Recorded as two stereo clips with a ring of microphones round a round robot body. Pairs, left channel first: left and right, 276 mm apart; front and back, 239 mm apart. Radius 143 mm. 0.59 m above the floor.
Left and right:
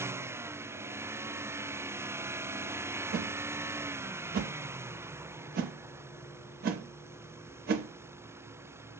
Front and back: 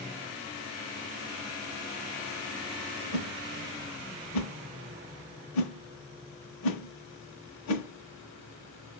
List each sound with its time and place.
3.1 s a whoosh: 35° right, 0.6 m